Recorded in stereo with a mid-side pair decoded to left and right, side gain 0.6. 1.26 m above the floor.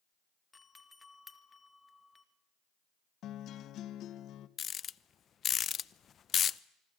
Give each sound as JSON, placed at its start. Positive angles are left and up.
{"t": 0.5, "sound": "a doorbell", "azimuth_deg": 20, "distance_m": 2.0}
{"t": 3.2, "sound": "a guitar", "azimuth_deg": 55, "distance_m": 1.4}
{"t": 4.6, "sound": "a rattle", "azimuth_deg": 40, "distance_m": 0.7}